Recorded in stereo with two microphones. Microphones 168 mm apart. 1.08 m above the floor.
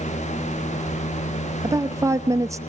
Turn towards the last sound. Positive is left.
turn(degrees=-20)  # may be behind; listen again after turning